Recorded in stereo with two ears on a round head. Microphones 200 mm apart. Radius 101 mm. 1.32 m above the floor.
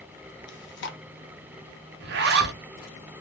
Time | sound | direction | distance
0.5 | chewing | 55° left (ahead or behind) | 0.6 m
2.0 | a zipper | 45° right (ahead or behind) | 0.5 m